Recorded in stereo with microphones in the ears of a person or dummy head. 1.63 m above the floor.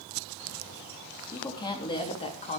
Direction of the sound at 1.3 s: 20° left (ahead or behind).